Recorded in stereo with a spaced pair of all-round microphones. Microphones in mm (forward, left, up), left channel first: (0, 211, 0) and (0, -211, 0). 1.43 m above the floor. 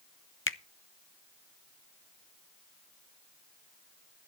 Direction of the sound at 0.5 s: 30° left (ahead or behind).